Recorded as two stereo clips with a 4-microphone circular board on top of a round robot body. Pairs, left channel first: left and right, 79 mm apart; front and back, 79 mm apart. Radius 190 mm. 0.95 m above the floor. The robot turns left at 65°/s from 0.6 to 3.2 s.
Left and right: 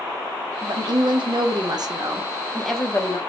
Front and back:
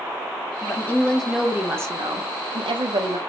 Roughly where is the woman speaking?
Ahead right.